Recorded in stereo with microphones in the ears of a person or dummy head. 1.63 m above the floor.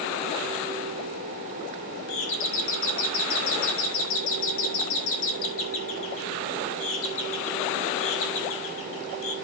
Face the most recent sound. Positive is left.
turn(degrees=70)  # may be behind; listen again after turning